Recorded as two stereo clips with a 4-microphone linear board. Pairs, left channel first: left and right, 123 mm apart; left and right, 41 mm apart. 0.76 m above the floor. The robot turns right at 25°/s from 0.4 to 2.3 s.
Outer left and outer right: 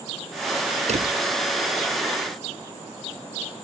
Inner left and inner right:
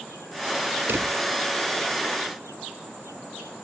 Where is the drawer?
70° right (ahead or behind); by 1.1 s 65° right (ahead or behind).